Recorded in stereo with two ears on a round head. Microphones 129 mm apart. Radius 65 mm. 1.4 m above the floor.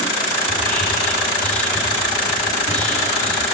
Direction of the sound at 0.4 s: 10° left (ahead or behind).